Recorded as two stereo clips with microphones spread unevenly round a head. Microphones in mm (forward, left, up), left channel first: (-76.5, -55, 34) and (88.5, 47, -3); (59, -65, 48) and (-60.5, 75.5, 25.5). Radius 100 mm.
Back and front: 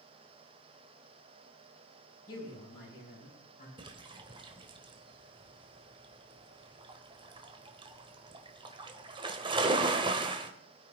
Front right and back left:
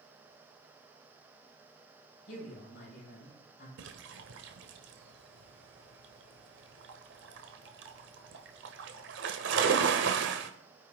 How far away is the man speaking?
About 6.5 m.